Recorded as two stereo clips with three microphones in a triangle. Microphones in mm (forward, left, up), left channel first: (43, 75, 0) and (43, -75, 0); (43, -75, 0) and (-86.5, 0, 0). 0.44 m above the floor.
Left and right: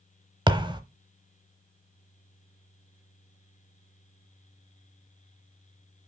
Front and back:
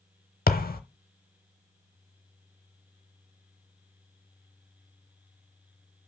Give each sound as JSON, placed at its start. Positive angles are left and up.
{"t": 0.5, "sound": "a thud", "azimuth_deg": -30, "distance_m": 0.7}